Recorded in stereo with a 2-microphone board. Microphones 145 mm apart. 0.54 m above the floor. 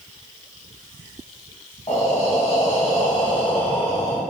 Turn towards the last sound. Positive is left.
turn(degrees=45)  # may be behind; listen again after turning